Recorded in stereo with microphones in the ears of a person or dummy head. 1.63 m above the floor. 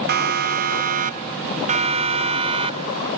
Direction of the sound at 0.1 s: 55° right (ahead or behind).